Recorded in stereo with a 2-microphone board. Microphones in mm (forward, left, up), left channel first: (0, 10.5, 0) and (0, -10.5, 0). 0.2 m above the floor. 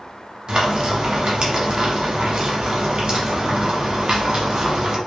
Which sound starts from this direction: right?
Frying, at 0.5 s.